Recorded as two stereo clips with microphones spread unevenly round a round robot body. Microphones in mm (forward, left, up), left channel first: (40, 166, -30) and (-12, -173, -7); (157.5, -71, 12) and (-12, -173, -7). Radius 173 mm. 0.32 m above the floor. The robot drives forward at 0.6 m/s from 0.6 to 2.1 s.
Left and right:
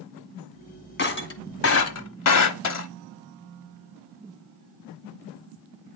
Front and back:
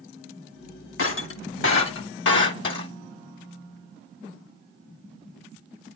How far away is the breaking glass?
About 1.2 m.